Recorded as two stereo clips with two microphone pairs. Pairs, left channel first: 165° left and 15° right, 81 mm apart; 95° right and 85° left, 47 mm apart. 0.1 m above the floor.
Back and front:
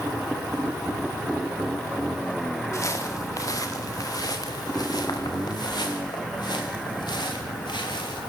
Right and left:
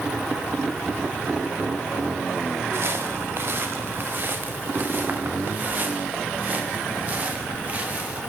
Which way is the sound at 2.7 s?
115° left.